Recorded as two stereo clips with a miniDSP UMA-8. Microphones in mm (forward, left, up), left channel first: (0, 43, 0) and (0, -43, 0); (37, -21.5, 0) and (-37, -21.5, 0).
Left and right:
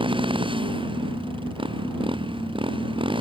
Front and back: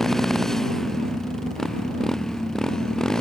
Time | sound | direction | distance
0.0 | a motorcycle | 85° right | ?